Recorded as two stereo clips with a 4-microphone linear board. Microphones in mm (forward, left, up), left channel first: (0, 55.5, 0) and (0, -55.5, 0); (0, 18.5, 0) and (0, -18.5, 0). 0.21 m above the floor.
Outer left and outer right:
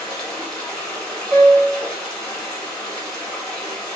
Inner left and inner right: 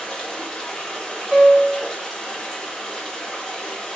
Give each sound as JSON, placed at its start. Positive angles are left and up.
{"t": 0.0, "sound": "running water", "side_deg": 10, "distance_m": 1.1}
{"t": 1.3, "sound": "a piano", "side_deg": -60, "distance_m": 0.7}